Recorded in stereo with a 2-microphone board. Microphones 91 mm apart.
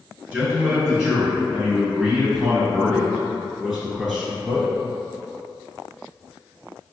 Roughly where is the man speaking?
Centre.